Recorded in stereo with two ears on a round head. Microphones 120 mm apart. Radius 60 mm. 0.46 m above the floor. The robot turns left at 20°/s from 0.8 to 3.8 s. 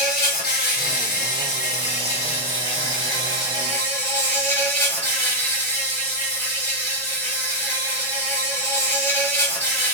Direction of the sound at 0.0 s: 75° left.